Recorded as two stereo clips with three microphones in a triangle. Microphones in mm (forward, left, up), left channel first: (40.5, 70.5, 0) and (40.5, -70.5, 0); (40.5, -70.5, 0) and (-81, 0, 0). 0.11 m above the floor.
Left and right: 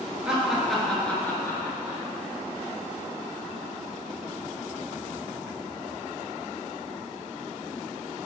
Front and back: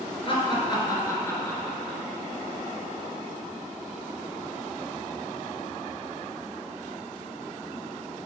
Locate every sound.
0.2 s laughter: 10° right, 1.6 m; by 2.0 s 55° left, 1.4 m